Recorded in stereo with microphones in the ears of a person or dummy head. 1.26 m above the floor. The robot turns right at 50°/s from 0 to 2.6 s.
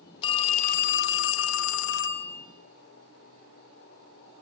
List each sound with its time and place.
0.2 s a phone ringing: 30° left, 1.1 m; by 2.5 s 145° left, 1.1 m